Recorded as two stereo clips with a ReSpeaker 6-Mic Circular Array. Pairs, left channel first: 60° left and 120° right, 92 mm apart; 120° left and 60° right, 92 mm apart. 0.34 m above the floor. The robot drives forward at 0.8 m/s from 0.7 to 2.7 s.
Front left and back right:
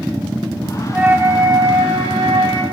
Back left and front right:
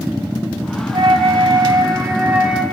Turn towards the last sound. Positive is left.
turn(degrees=-145)